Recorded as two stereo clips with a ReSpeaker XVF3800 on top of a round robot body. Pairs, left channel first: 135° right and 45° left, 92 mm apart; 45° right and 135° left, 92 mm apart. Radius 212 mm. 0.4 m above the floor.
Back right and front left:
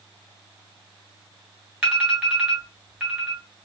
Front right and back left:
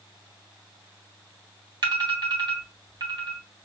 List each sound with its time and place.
1.8 s an alarm: 115° left, 3 m